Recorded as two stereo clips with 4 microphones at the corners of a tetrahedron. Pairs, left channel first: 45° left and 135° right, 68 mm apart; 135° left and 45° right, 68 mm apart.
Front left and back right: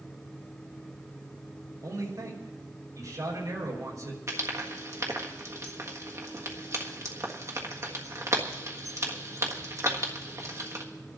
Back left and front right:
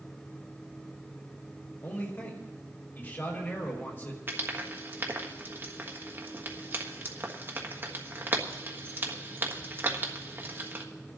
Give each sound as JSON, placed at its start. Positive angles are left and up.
{"t": 1.8, "sound": "a man speaking", "azimuth_deg": -170, "distance_m": 4.5}
{"t": 4.3, "sound": "frying", "azimuth_deg": -100, "distance_m": 1.5}